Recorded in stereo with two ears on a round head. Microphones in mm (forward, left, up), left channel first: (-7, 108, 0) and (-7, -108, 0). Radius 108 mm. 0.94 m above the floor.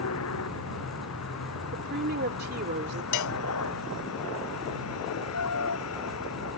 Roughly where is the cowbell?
Left.